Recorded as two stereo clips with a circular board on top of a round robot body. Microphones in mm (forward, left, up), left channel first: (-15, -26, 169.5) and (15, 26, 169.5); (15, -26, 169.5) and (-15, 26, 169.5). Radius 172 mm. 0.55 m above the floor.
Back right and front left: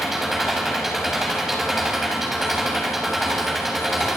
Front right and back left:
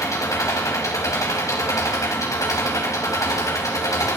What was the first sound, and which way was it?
An engine running, 25° right.